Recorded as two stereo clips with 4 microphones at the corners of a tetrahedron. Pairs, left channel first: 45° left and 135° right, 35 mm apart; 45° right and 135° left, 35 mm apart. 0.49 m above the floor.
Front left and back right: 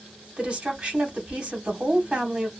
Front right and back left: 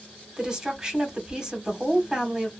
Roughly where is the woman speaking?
Behind.